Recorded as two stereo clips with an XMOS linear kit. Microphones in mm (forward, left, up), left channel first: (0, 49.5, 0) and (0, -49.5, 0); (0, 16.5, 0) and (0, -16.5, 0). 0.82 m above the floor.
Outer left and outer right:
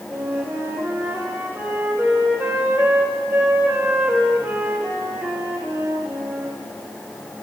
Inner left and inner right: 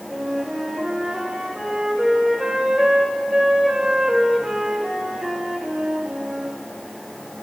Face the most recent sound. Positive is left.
turn(degrees=-25)  # may be behind; listen again after turning